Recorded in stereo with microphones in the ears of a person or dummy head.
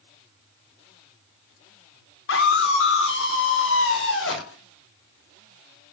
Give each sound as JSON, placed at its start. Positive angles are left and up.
{"t": 2.3, "sound": "a scream", "side_deg": 85, "distance_m": 5.0}